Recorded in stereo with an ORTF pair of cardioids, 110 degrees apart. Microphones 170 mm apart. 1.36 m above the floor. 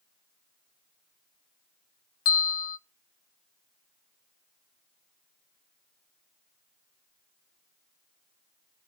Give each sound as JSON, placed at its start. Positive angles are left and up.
{"t": 2.2, "sound": "a bell", "azimuth_deg": 55, "distance_m": 1.2}